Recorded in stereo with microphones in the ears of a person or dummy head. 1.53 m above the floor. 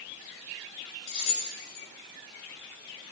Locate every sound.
1.1 s keys jangling: 60° left (ahead or behind), 4 m